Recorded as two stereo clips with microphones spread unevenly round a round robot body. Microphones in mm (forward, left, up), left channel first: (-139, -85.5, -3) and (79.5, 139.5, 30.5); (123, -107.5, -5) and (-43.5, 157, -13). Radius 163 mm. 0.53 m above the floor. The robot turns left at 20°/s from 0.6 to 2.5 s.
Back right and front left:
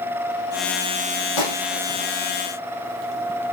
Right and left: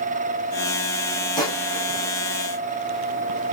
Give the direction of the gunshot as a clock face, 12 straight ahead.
5 o'clock.